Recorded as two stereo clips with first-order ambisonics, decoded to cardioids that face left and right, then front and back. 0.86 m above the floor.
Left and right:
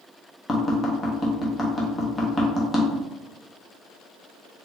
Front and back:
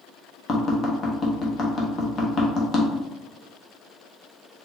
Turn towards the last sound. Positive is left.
turn(degrees=35)